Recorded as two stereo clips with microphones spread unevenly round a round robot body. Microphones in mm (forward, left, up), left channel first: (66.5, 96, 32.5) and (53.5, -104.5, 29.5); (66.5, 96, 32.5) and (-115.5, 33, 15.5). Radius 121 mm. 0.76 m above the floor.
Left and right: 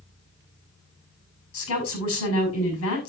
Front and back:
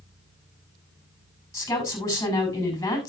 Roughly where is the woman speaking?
Left.